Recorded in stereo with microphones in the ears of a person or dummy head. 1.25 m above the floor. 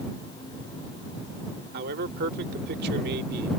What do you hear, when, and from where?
1.7 s a man speaking: 55° right (ahead or behind)